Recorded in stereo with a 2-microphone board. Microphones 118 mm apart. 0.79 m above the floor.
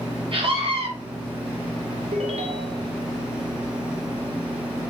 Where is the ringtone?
65° right (ahead or behind), 1.7 m.